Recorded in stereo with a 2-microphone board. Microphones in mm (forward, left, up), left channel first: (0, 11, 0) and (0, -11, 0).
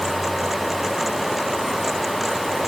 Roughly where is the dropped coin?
I don't hear a dropped coin.